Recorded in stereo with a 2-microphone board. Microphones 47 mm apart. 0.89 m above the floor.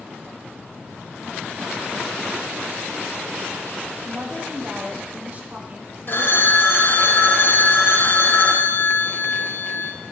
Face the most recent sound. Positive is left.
turn(degrees=50)  # may be behind; listen again after turning